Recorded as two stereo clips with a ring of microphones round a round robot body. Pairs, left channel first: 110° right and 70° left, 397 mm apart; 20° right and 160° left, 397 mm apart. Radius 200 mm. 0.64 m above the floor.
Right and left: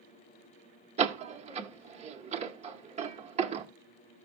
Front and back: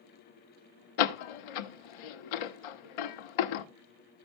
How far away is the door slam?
About 0.9 m.